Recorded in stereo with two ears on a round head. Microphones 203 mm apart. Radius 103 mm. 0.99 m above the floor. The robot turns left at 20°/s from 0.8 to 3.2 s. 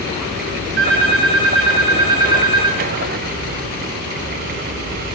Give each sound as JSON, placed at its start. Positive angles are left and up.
{"t": 0.8, "sound": "a phone ringing", "azimuth_deg": -45, "distance_m": 8.5}